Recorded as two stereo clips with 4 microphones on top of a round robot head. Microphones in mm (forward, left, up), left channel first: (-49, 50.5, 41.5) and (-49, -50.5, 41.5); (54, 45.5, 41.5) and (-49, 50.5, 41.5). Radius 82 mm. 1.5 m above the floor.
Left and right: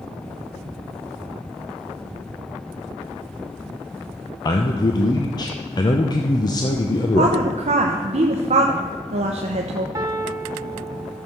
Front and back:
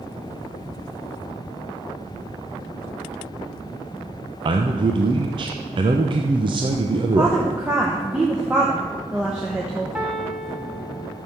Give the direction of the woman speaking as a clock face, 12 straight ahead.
3 o'clock.